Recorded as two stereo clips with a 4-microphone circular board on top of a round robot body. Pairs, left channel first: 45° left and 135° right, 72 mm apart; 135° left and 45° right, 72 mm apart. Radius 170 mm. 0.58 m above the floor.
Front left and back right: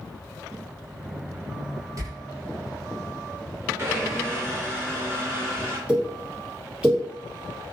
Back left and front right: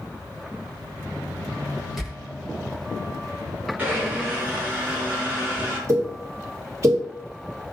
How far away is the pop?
About 1.4 m.